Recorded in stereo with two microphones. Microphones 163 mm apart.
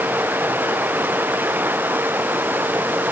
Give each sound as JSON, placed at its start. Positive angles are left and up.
{"t": 0.0, "sound": "running water", "side_deg": -10}